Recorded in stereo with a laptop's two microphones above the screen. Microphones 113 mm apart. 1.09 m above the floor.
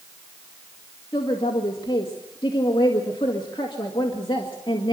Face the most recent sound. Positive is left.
turn(degrees=45)  # may be behind; listen again after turning